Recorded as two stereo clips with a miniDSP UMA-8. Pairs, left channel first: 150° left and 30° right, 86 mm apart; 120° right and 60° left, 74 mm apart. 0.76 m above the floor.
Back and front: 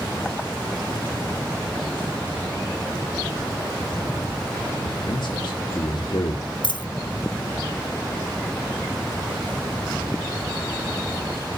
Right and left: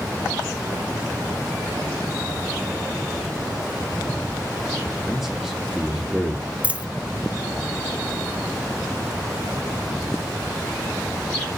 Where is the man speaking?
145° left, 1.6 m.